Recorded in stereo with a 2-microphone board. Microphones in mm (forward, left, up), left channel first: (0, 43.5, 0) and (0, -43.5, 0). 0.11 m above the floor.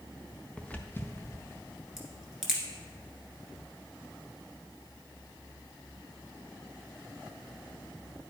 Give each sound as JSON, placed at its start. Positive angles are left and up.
{"t": 0.6, "sound": "footsteps", "side_deg": 10, "distance_m": 0.8}
{"t": 2.0, "sound": "a crack", "side_deg": -5, "distance_m": 1.5}